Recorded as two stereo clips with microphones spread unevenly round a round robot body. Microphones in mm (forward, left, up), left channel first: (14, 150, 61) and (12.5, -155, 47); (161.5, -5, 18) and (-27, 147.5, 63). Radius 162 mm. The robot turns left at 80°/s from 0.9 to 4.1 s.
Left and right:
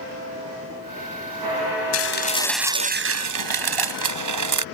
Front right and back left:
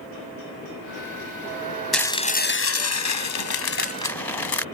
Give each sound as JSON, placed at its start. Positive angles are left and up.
{"t": 1.9, "sound": "dishes clattering", "azimuth_deg": 50}